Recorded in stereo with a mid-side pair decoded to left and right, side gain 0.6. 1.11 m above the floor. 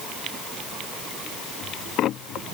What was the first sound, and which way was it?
Only background noise.